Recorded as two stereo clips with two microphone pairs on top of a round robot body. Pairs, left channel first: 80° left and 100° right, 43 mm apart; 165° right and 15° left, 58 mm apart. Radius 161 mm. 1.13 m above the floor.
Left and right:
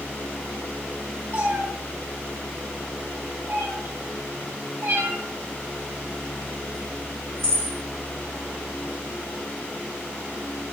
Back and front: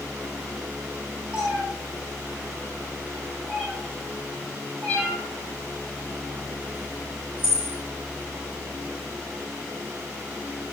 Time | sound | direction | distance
1.3 | a cat meowing | 60° right | 4 m